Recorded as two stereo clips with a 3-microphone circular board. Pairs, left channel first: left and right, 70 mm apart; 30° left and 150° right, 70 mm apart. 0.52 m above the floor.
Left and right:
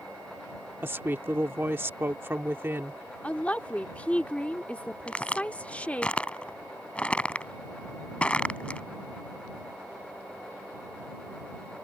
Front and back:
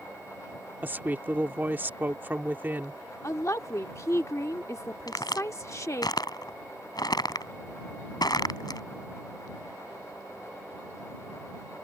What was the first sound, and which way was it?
A woman speaking, 110° right.